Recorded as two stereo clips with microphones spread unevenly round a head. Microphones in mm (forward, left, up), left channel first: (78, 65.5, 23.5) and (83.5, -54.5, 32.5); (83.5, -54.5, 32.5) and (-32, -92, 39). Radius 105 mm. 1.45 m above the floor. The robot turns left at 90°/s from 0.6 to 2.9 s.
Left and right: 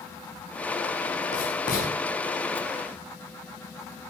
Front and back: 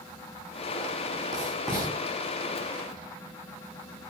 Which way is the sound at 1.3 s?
140° left.